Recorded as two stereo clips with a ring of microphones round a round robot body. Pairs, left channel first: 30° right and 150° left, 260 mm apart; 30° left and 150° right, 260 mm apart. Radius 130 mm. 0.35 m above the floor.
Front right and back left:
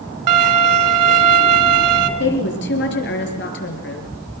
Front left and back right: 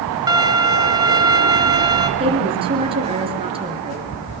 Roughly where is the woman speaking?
Right.